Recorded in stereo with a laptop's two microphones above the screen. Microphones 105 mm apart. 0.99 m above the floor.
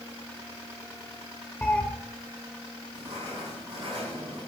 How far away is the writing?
About 10 m.